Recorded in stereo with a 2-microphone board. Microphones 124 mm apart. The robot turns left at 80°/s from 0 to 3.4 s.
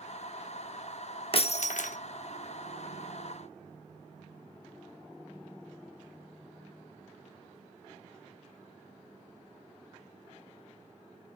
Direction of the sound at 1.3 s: 135° left.